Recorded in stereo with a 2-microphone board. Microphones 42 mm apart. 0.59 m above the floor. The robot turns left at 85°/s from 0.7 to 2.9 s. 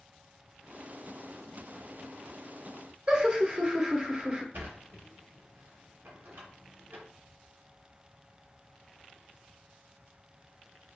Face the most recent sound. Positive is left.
turn(degrees=-65)  # may be behind; listen again after turning